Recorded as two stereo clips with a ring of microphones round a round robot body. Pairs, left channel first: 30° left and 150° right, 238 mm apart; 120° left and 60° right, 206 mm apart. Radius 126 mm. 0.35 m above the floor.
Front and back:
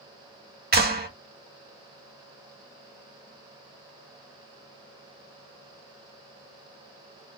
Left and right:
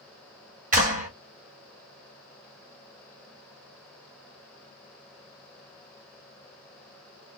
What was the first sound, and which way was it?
A clap, 110° right.